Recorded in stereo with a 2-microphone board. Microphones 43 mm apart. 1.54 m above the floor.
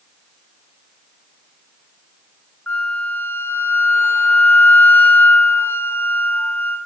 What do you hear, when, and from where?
2.7 s a flute: 50° left (ahead or behind), 0.7 m